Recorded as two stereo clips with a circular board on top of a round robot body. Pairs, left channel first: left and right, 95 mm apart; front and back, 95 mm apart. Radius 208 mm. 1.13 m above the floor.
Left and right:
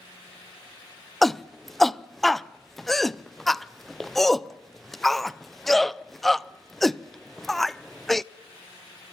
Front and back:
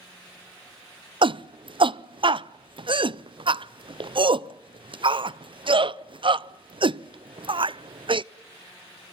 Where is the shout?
175° left, 0.8 m.